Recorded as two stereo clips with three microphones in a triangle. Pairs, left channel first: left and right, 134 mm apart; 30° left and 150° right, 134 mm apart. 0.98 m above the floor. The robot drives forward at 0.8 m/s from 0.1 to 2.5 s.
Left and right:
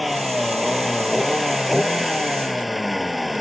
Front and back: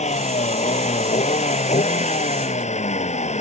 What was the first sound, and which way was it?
A vehicle, straight ahead.